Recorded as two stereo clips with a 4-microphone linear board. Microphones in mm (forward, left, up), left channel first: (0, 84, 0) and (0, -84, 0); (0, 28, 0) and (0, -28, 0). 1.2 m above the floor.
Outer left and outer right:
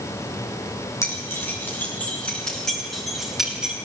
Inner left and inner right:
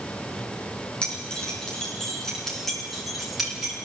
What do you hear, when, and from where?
1.0 s keys jangling: 15° left (ahead or behind), 8 m; by 3.7 s 5° right (ahead or behind), 8.5 m